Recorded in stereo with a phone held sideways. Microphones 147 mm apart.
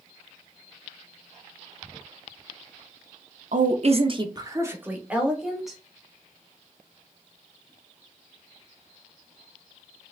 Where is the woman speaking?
65° right (ahead or behind), 0.6 m; by 5.8 s centre (ahead or behind), 1.3 m.